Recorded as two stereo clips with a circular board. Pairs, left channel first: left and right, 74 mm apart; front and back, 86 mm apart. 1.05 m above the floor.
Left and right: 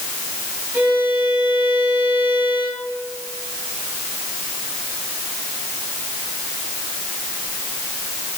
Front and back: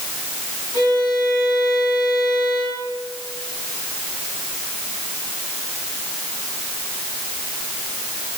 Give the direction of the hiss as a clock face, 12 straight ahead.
No hiss in this recording.